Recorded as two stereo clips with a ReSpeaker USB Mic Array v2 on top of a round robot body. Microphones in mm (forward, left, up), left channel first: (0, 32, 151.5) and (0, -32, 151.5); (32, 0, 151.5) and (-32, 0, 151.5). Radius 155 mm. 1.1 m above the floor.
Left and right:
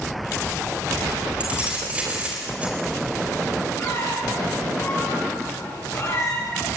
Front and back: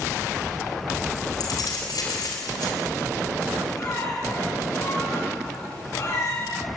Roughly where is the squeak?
Ahead left.